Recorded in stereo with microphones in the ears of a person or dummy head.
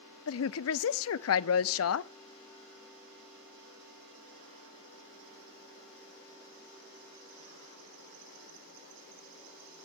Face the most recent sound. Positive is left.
turn(degrees=70)  # may be behind; listen again after turning